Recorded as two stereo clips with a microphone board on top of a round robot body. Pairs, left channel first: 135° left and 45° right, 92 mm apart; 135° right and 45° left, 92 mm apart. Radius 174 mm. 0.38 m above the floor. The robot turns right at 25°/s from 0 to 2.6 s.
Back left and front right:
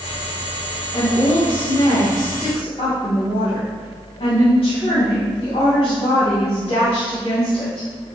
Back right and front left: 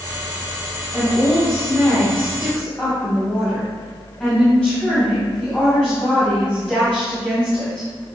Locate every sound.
0.9 s a woman speaking: 105° left, 4 m; by 7.9 s 145° left, 4 m